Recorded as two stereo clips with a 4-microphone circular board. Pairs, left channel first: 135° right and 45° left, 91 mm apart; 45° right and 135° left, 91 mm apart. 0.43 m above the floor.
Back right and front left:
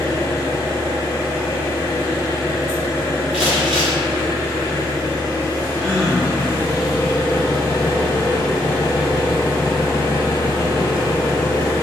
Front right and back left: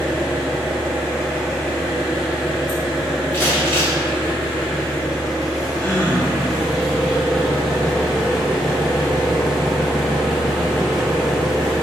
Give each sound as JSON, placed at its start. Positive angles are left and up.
{"t": 0.0, "sound": "an engine running", "azimuth_deg": -135, "distance_m": 0.9}
{"t": 3.3, "sound": "crumpling", "azimuth_deg": -25, "distance_m": 1.4}
{"t": 5.8, "sound": "a gasp", "azimuth_deg": -55, "distance_m": 0.8}